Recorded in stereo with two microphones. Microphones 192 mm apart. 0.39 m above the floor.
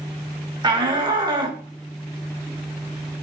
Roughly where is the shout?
Right.